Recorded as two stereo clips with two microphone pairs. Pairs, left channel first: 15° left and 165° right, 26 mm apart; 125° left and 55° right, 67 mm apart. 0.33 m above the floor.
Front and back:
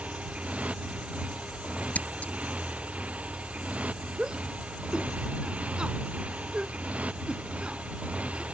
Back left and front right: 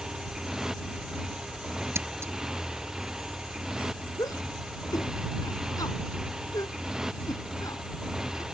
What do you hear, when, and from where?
0.0 s a motorcycle: 135° right
1.9 s scissors: 5° right
4.2 s a shout: 140° left